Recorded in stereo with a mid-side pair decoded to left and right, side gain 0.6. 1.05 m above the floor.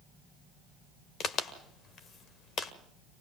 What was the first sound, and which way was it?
A crack, 45° left.